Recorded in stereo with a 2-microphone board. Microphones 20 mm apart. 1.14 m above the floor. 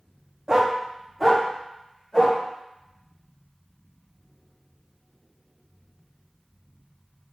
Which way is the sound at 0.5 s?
30° right (ahead or behind).